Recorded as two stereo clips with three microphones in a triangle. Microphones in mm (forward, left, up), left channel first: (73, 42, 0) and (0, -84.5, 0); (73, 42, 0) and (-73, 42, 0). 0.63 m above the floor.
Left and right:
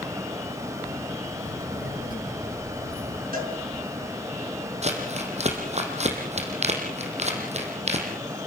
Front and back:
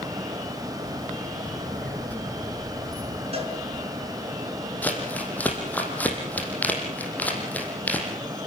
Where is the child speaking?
85° left, 5 m; by 3.2 s 75° left, 4.5 m.